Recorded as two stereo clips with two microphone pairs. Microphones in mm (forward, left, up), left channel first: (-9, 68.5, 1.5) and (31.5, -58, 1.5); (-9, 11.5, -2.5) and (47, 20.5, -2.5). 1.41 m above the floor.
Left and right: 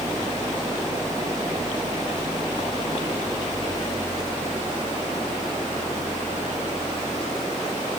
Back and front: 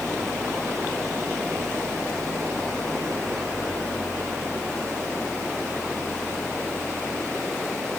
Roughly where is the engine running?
Ahead.